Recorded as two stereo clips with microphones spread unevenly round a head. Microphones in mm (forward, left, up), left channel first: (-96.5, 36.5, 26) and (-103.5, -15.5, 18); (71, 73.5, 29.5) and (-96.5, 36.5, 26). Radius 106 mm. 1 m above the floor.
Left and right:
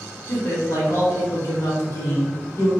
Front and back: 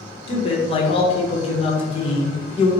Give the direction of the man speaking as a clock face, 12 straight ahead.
10 o'clock.